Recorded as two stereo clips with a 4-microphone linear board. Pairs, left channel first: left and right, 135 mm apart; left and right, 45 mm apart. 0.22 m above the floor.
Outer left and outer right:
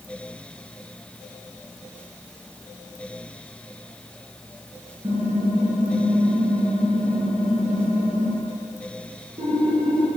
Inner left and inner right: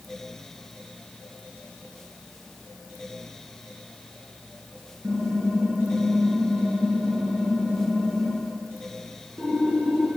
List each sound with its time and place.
5.0 s typing on a keyboard: 45° right (ahead or behind), 3 m